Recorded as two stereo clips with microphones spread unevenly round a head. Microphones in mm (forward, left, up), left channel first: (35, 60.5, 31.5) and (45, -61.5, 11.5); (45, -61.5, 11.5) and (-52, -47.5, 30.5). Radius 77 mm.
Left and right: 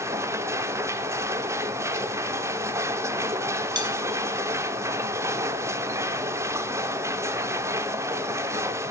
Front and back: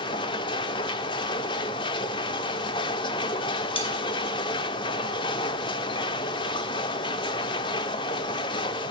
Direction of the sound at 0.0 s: 20° right.